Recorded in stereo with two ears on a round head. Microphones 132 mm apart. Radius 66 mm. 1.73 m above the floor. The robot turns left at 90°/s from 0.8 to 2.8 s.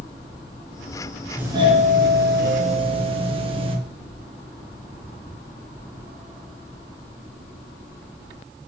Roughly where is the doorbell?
Ahead.